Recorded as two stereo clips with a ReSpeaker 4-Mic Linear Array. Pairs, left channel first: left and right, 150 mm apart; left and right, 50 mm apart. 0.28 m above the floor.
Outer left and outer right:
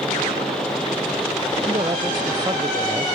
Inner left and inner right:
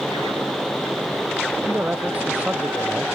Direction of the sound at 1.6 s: 30° right (ahead or behind).